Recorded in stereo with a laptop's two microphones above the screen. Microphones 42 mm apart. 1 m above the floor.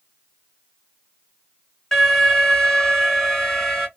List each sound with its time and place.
1.9 s an alarm: 10° left (ahead or behind), 2.5 m